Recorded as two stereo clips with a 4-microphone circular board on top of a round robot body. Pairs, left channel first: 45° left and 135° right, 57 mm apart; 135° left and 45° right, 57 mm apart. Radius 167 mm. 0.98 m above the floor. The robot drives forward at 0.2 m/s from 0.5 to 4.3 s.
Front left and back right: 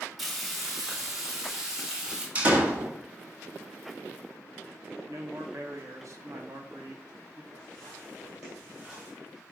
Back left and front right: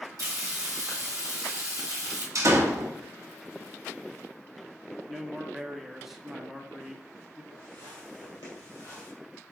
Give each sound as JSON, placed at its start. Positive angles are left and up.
{"t": 0.2, "sound": "frying", "azimuth_deg": -50, "distance_m": 1.5}
{"t": 2.4, "sound": "a door slam", "azimuth_deg": -70, "distance_m": 1.1}
{"t": 5.1, "sound": "a man speaking", "azimuth_deg": -135, "distance_m": 1.0}
{"t": 7.5, "sound": "footsteps", "azimuth_deg": 110, "distance_m": 1.4}